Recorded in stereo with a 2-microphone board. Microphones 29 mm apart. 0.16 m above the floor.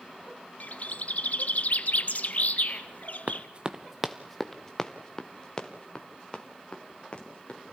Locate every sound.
0.6 s a bird: 60° left (ahead or behind), 1.2 m
3.3 s running footsteps: 55° right (ahead or behind), 1.0 m; by 7.7 s 35° left (ahead or behind), 5.5 m